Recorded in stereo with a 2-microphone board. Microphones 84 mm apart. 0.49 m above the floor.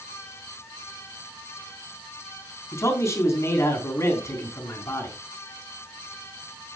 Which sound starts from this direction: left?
A man speaking, at 2.7 s.